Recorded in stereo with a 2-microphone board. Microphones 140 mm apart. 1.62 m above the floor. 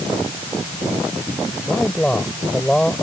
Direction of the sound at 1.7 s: 5° left (ahead or behind).